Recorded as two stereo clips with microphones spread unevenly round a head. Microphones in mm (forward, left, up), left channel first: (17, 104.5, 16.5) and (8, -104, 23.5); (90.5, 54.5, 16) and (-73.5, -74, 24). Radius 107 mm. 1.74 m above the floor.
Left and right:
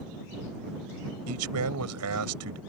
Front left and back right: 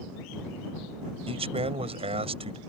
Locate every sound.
1.3 s a man speaking: 75° right